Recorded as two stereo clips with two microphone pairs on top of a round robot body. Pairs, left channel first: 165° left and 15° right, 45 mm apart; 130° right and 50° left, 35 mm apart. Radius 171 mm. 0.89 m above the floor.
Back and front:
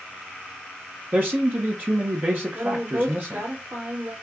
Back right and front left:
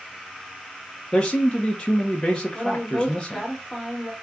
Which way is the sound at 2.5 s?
40° right.